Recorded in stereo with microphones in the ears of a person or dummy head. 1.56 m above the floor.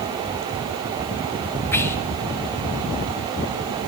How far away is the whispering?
About 0.6 m.